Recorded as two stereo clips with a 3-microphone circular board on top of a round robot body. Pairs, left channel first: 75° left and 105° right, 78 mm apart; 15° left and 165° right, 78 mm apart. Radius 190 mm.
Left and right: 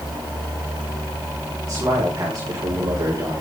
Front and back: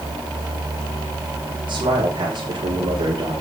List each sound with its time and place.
1.7 s a man speaking: 155° right, 6.5 m; by 3.4 s 150° right, 6 m